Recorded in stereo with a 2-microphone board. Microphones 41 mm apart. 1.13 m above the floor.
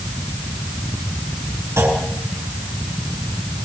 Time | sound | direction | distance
1.8 | a clunk | 80° right | 8 m